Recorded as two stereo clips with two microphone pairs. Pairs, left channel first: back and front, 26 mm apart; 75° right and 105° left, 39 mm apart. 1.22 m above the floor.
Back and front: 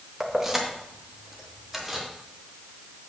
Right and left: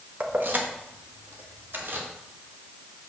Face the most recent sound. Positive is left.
turn(degrees=80)